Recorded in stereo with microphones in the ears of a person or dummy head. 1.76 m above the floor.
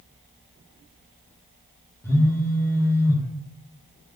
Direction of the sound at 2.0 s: 15° left (ahead or behind).